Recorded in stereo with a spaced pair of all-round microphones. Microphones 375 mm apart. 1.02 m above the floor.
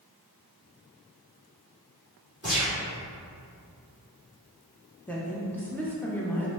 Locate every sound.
2.4 s a gunshot: 40° right (ahead or behind), 1.8 m
5.1 s a woman speaking: 5° left (ahead or behind), 0.5 m